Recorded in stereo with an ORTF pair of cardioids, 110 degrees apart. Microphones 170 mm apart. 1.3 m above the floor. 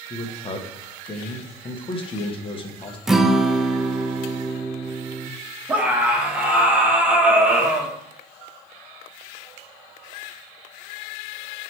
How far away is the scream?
About 2.0 m.